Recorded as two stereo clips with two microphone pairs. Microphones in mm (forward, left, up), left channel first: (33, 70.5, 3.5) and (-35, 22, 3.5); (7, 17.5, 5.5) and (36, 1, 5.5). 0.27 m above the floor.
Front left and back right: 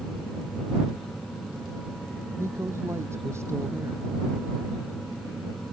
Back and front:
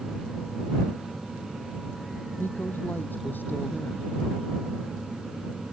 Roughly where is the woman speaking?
Behind.